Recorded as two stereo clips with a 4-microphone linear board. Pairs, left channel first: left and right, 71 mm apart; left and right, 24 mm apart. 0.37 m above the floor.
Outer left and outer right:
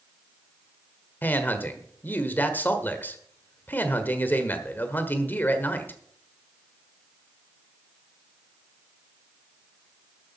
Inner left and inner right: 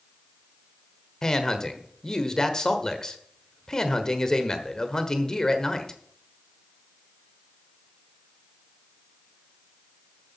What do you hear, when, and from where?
1.2 s a man speaking: 25° left (ahead or behind), 1.3 m